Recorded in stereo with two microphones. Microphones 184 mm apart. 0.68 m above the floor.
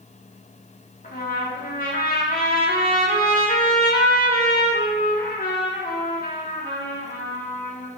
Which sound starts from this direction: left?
A trumpet, at 1.0 s.